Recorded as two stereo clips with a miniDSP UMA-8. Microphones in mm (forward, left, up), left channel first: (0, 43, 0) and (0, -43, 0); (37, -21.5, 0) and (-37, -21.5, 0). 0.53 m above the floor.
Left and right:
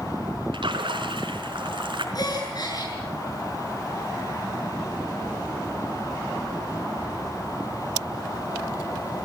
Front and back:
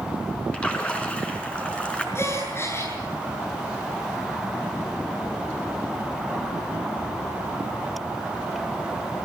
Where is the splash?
75° right, 4 m.